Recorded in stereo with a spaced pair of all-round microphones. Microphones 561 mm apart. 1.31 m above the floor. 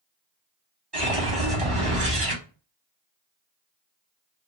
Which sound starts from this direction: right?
A whoosh, at 0.9 s.